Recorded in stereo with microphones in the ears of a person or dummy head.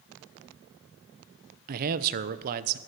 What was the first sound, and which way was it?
A man speaking, 55° right (ahead or behind).